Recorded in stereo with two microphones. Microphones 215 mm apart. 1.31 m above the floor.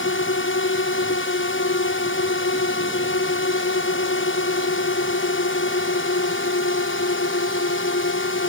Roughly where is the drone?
Left.